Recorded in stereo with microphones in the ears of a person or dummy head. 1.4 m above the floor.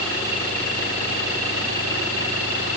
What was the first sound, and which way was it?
Only background noise.